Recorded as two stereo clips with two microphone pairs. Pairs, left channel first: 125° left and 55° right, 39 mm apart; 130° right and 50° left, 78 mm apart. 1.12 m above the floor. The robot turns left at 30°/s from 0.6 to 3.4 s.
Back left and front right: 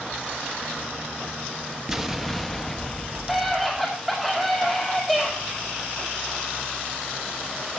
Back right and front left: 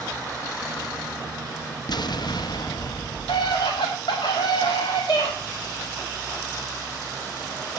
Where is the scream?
145° right, 2 m; by 5.3 s 150° right, 2 m.